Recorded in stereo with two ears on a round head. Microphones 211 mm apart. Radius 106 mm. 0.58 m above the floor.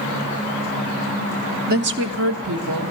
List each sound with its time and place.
1.7 s a woman speaking: 40° right (ahead or behind), 0.8 m; by 2.9 s 75° right (ahead or behind), 2 m